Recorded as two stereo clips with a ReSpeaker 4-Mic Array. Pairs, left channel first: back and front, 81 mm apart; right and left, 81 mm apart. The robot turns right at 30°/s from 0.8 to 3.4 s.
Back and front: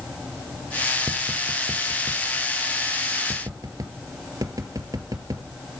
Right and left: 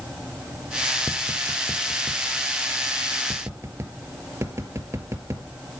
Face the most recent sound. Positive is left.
turn(degrees=40)